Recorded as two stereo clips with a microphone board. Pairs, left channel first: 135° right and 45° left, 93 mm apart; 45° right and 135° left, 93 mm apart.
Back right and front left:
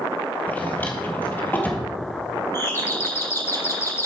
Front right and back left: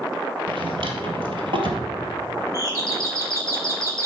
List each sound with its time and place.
0.5 s a drawer: 155° left, 1.6 m
2.5 s a doorbell: 175° left, 2.5 m